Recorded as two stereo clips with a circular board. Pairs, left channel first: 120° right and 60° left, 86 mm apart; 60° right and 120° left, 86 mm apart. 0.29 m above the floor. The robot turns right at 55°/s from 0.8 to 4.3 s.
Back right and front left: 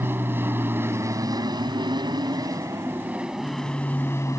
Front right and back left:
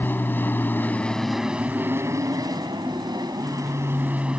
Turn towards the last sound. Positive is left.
turn(degrees=-165)